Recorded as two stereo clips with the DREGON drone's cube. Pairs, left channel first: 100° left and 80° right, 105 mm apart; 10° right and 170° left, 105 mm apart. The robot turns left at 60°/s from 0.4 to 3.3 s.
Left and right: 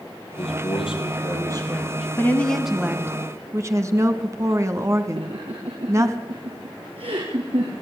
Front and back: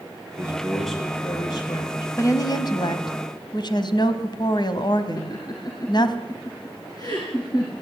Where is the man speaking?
105° left, 6 m; by 2.1 s 5° left, 6 m.